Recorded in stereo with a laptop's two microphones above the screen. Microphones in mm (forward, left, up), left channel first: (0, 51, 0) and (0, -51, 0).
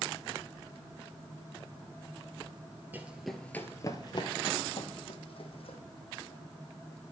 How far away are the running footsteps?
About 1.0 m.